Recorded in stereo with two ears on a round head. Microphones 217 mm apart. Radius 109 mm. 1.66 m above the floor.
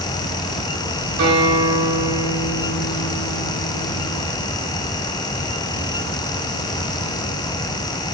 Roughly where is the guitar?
Right.